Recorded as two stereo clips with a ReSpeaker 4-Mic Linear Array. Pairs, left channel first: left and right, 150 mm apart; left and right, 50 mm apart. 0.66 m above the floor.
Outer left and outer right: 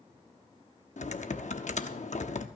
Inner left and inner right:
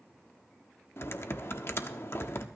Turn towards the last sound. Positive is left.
turn(degrees=50)  # may be behind; listen again after turning